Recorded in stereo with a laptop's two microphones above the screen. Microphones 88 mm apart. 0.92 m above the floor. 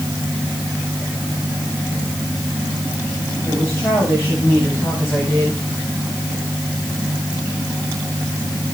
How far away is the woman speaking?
About 7.5 m.